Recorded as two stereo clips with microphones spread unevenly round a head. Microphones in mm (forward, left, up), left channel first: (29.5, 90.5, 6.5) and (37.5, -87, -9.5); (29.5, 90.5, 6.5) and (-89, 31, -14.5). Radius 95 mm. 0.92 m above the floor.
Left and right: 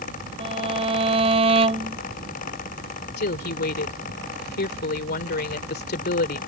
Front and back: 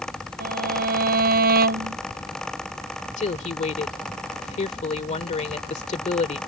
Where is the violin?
150° right.